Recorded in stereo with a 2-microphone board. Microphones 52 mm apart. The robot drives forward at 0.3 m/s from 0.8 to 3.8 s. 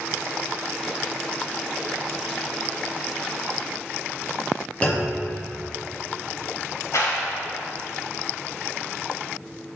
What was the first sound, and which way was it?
A clunk, 25° left (ahead or behind).